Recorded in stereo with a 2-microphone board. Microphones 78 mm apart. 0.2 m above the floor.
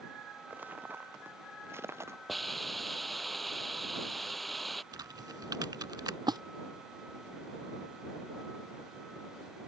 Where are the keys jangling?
No keys jangling in this recording.